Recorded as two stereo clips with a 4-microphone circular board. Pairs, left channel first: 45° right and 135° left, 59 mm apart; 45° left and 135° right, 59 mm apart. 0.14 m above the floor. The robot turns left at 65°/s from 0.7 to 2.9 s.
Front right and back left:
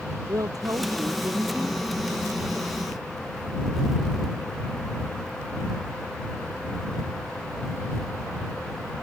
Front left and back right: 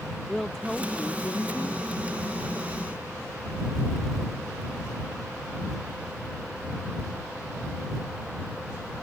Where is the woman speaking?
130° left; by 1.9 s 55° left.